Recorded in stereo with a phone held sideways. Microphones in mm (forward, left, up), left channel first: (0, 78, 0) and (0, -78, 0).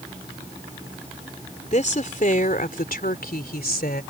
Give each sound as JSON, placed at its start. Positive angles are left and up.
{"t": 1.7, "sound": "a woman speaking", "side_deg": 50}